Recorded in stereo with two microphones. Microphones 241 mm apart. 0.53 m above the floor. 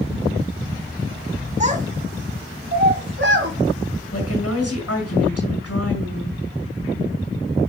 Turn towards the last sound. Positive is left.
turn(degrees=75)  # may be behind; listen again after turning